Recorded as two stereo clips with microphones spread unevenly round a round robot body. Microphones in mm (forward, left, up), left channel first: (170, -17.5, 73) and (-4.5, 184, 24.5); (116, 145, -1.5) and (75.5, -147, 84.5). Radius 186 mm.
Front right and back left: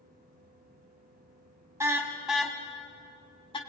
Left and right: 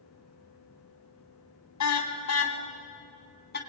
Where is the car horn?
50° left, 3 m; by 3.6 s 20° left, 3.5 m.